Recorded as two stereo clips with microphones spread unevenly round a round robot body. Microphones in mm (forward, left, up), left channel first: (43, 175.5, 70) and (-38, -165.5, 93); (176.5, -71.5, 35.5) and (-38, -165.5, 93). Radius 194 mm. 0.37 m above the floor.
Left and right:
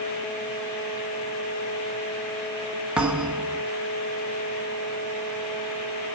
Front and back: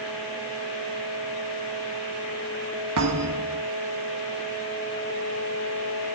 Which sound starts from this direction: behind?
A thud, at 3.0 s.